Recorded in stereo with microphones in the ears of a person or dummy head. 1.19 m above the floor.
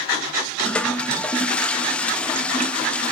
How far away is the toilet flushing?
About 0.6 m.